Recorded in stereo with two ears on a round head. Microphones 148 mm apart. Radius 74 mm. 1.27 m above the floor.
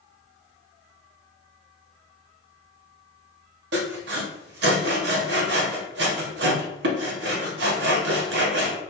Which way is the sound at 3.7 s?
75° right (ahead or behind).